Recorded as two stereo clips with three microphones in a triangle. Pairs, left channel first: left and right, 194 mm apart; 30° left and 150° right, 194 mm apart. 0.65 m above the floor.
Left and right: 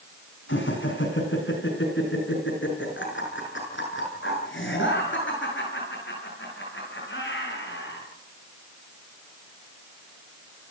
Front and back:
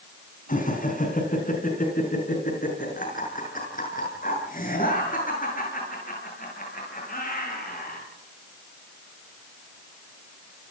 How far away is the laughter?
About 5.5 m.